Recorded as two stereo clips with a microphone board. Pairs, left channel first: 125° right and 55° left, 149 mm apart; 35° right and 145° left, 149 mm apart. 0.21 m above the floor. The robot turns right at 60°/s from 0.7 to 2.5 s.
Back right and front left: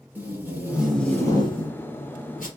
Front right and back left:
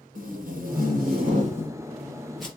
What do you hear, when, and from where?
0.1 s tape being pulled: 135° left, 3 m; by 2.5 s 120° right, 3 m